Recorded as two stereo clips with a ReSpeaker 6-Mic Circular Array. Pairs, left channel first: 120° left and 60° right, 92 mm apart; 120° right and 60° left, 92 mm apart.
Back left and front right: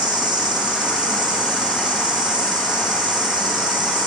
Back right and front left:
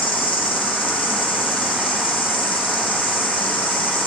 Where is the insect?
95° right, 1.6 m.